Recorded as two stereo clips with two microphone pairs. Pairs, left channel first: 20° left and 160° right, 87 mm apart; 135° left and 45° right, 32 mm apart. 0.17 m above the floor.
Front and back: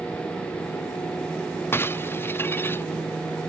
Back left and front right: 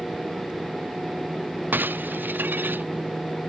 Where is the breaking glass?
45° right.